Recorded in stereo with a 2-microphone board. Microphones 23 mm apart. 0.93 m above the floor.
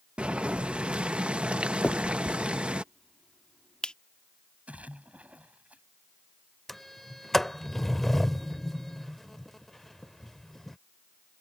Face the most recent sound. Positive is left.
turn(degrees=10)  # may be behind; listen again after turning